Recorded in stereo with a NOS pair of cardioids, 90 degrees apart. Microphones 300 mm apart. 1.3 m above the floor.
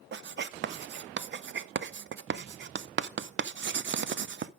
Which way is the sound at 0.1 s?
40° right.